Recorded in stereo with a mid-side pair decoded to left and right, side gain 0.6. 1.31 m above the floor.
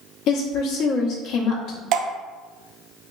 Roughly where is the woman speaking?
Ahead left.